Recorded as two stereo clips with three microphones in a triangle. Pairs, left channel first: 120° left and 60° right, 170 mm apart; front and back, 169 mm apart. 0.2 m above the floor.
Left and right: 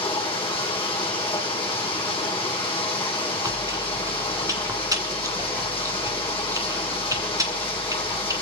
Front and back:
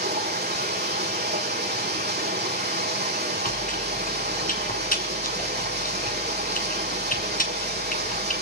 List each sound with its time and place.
0.0 s running water: straight behind, 4.5 m
3.4 s chewing: 5° left, 1.9 m